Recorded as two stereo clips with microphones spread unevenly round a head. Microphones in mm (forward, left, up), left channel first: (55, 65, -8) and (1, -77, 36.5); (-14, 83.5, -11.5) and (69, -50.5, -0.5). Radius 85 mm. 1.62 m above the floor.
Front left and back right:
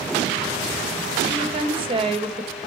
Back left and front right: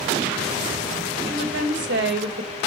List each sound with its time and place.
1.2 s a woman speaking: 60° right, 2.0 m